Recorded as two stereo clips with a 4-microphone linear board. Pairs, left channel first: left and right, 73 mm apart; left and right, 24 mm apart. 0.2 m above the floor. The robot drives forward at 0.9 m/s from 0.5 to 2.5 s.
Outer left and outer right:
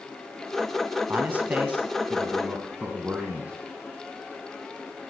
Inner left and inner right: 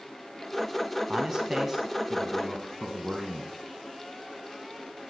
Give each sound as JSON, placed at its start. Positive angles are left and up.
{"t": 1.1, "sound": "a man speaking", "side_deg": -25, "distance_m": 1.0}